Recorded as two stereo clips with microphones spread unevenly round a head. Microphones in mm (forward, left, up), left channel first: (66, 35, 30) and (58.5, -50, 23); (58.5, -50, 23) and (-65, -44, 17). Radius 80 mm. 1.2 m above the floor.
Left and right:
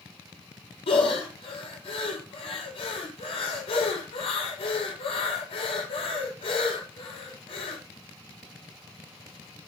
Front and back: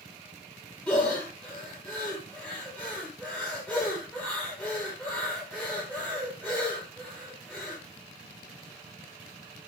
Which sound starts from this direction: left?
Breathing, at 0.9 s.